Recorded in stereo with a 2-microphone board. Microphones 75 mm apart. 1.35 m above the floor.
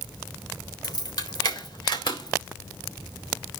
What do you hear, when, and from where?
0.8 s keys jangling: 60° left (ahead or behind), 3.5 m; by 3.6 s 80° left, 4.5 m